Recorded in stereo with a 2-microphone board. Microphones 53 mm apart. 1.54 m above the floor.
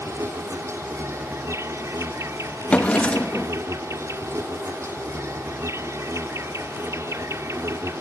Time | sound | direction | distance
0.0 | an insect | 65° right (ahead or behind) | ?
2.7 | a drawer | 25° left (ahead or behind) | ?